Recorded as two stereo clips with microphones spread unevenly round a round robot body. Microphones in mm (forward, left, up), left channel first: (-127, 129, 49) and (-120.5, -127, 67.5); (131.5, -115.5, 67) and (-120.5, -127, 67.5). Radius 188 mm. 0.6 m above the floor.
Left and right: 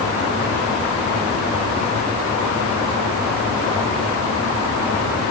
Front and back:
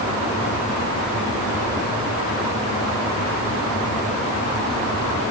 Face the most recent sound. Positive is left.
No sound to turn to.